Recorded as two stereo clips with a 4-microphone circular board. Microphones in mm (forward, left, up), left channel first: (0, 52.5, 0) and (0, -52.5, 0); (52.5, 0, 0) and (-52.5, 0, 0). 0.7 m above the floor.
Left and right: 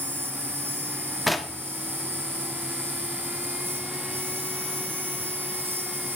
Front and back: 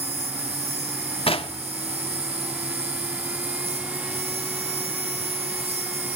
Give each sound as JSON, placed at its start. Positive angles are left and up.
{"t": 0.0, "sound": "an insect", "azimuth_deg": -160, "distance_m": 6.0}
{"t": 1.3, "sound": "knocking", "azimuth_deg": 0, "distance_m": 1.0}